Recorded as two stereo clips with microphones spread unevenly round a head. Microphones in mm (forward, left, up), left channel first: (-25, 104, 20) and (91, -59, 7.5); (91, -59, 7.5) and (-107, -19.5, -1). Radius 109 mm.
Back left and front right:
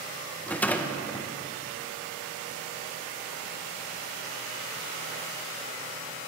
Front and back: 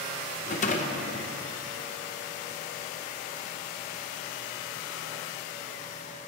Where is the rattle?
40° left, 0.7 m.